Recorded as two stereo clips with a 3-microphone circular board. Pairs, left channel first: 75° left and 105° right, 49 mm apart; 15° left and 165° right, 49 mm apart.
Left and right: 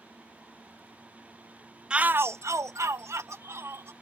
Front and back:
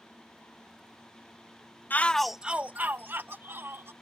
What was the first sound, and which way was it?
A shout, 30° right.